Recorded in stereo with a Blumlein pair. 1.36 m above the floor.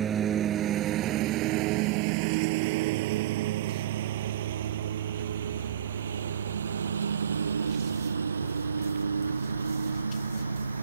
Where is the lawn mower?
25° right; by 10.8 s 80° right.